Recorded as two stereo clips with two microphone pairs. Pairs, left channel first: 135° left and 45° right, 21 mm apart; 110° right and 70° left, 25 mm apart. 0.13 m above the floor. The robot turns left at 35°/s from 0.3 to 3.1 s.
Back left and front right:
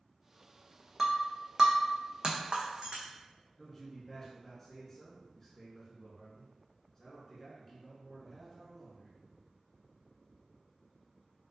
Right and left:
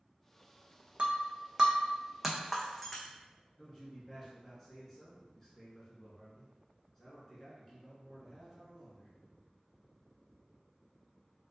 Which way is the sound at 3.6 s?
170° right.